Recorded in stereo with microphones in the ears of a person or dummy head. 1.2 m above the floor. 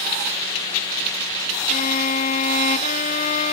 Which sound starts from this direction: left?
A violin, at 1.7 s.